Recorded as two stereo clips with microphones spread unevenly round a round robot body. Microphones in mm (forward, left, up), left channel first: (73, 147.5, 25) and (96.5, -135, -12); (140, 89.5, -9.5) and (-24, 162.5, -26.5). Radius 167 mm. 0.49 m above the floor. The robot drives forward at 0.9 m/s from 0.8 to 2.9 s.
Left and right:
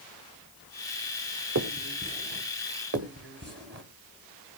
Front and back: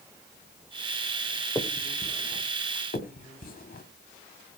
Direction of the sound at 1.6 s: 105° right.